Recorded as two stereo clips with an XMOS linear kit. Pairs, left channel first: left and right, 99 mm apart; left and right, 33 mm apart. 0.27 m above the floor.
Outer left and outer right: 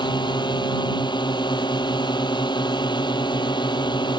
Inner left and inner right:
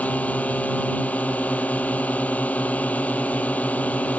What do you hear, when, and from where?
0.0 s a drone: 50° left (ahead or behind)